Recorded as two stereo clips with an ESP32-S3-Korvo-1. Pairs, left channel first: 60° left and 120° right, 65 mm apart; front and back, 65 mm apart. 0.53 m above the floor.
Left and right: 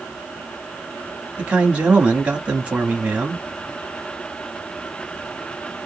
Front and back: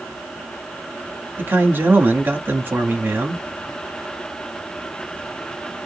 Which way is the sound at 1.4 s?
175° right.